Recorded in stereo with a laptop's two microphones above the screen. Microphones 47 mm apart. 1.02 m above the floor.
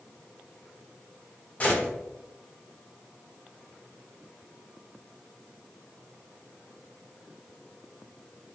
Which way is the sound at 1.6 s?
30° left (ahead or behind).